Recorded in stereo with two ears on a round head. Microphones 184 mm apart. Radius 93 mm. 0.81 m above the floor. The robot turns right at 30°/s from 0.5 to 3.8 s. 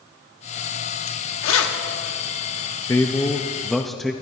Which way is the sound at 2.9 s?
15° left (ahead or behind).